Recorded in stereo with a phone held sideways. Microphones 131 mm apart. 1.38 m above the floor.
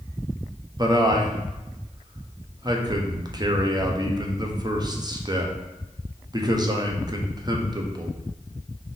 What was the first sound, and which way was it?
A man speaking, 30° right (ahead or behind).